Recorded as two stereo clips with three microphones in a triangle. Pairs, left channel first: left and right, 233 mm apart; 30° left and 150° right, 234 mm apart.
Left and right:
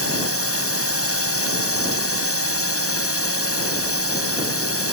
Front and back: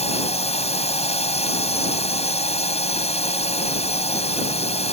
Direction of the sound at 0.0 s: 90° left.